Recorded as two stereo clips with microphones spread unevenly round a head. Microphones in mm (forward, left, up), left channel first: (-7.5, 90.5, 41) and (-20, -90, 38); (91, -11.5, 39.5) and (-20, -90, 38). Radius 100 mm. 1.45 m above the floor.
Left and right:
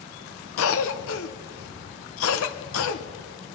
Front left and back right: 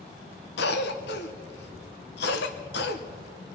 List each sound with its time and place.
0.6 s a cough: 65° left, 0.8 m